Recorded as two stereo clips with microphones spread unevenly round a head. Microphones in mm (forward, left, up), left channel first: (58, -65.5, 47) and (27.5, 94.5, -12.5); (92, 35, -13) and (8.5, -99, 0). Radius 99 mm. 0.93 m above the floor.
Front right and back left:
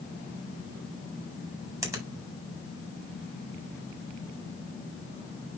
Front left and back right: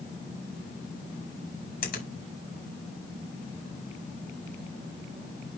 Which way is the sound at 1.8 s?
30° left.